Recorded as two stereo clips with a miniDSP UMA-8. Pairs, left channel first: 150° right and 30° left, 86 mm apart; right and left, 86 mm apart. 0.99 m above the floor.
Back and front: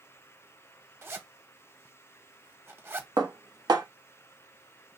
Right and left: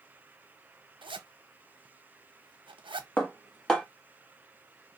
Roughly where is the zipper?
Left.